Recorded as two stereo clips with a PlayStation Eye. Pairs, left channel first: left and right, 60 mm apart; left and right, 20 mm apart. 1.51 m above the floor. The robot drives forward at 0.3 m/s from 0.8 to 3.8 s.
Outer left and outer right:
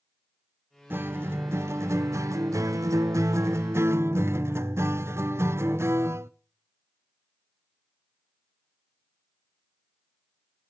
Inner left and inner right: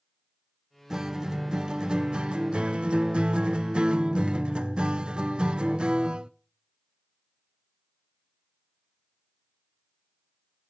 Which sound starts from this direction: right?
A guitar, at 0.9 s.